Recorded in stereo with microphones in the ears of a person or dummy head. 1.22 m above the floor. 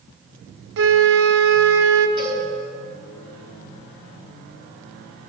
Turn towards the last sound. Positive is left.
turn(degrees=-25)  # may be behind; listen again after turning